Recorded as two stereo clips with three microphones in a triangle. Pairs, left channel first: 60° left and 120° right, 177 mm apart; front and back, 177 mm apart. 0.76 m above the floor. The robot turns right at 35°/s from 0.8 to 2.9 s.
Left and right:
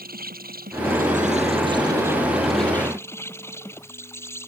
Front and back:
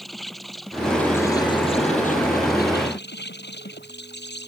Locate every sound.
0.0 s an insect: 90° right; by 4.5 s 15° right